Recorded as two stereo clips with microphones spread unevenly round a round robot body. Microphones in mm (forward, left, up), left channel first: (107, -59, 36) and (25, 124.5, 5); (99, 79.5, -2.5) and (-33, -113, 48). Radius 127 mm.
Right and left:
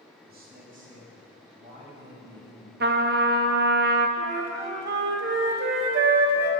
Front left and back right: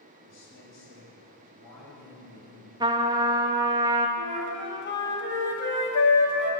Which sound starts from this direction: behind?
A trumpet, at 2.8 s.